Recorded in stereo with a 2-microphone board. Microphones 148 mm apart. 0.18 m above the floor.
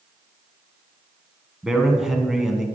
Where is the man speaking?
5° right (ahead or behind), 1.3 m.